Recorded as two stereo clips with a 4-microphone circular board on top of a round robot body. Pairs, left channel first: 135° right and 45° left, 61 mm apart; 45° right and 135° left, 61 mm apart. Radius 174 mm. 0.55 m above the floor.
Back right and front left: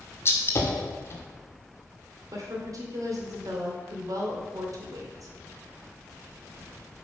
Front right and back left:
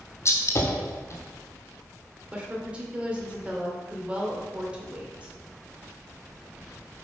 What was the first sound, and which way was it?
A gunshot, 85° right.